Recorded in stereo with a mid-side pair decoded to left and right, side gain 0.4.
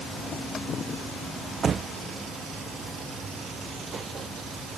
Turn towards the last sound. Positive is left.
No sound to turn to.